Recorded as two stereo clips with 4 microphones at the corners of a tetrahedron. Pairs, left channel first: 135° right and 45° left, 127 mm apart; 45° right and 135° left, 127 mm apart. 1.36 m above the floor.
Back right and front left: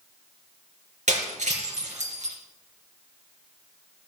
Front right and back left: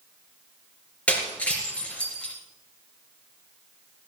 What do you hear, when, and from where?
1.1 s breaking glass: 35° left, 3.5 m